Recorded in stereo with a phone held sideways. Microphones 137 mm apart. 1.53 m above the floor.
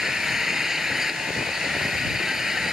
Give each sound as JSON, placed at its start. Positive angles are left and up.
{"t": 0.0, "sound": "an engine running", "side_deg": -5}